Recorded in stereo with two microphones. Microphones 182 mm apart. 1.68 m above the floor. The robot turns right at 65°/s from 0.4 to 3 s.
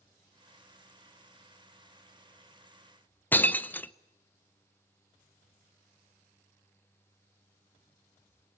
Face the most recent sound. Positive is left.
turn(degrees=10)  # may be behind; listen again after turning